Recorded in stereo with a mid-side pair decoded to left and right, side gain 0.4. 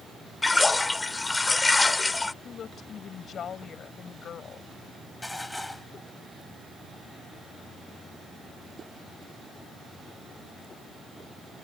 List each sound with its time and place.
0.4 s a splash: 20° left
2.4 s a woman speaking: 60° left
5.2 s dishes clattering: 10° left